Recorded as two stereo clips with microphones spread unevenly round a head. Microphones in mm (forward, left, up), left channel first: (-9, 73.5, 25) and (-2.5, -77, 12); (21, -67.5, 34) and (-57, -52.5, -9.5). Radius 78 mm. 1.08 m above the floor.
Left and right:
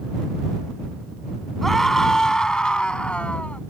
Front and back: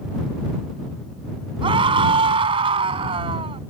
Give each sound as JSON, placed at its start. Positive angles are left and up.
{"t": 1.6, "sound": "a scream", "azimuth_deg": 180}